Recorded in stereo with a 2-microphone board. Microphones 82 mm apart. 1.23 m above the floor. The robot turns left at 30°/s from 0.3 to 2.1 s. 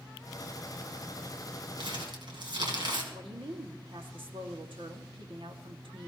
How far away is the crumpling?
About 3 m.